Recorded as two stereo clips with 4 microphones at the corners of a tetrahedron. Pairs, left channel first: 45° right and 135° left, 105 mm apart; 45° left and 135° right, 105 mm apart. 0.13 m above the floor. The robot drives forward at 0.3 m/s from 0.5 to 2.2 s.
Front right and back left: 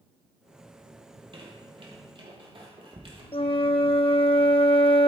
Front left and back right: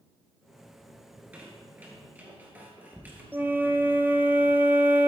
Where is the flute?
65° right, 0.7 m.